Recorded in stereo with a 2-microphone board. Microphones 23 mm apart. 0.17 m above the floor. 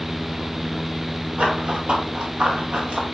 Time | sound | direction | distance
1.4 | running footsteps | 65° right (ahead or behind) | 3.5 m